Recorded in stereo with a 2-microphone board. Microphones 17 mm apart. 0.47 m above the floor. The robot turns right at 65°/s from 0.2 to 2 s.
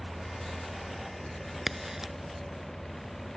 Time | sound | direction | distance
1.7 | a crack | centre (ahead or behind) | ?